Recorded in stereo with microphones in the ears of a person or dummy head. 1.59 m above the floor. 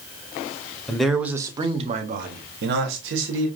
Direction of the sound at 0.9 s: 10° left (ahead or behind).